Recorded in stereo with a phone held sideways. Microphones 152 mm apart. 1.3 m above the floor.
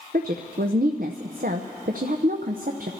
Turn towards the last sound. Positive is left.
turn(degrees=-70)  # may be behind; listen again after turning